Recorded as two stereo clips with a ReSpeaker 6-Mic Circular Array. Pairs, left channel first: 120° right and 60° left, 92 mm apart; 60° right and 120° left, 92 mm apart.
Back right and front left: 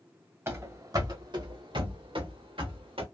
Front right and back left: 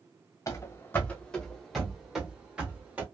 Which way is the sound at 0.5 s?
5° right.